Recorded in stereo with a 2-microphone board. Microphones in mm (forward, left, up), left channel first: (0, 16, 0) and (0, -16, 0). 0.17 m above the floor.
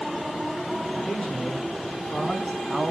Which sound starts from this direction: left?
A man speaking, at 0.9 s.